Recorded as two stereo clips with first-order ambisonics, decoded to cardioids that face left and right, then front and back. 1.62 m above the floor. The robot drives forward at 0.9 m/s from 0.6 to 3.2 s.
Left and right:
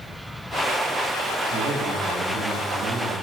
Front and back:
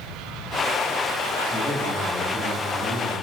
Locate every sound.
1.5 s a man speaking: 90° right, 4.5 m; by 3.1 s 110° right, 4.5 m